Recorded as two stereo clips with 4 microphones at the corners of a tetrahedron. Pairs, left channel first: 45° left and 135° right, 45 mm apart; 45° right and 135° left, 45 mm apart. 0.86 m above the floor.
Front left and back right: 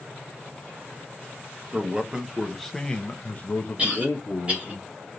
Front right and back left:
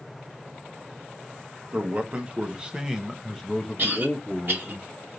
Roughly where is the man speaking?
Behind.